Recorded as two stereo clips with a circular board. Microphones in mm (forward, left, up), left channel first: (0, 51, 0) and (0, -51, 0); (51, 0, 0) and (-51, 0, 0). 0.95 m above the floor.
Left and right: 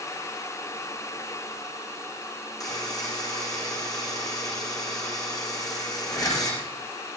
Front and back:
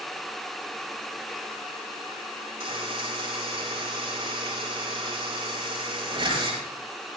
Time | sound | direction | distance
2.6 | a buzzer | 140° left | 9 m